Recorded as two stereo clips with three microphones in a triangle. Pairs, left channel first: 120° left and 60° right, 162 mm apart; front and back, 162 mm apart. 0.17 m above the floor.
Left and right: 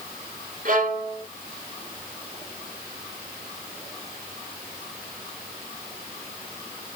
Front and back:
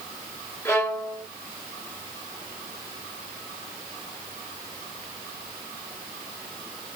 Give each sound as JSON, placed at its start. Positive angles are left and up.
{"t": 0.7, "sound": "a violin", "azimuth_deg": -70, "distance_m": 0.8}